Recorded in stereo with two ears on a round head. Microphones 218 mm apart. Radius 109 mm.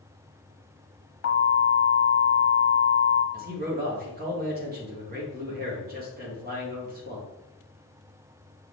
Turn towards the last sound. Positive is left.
turn(degrees=-40)  # may be behind; listen again after turning